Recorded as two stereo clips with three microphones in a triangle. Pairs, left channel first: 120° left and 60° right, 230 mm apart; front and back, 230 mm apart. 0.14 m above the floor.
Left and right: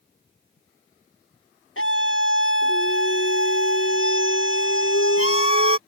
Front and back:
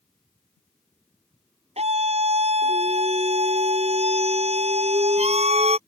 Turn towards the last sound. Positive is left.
turn(degrees=120)